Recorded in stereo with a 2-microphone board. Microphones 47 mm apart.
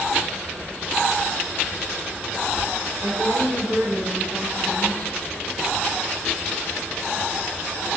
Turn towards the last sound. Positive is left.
turn(degrees=-60)  # may be behind; listen again after turning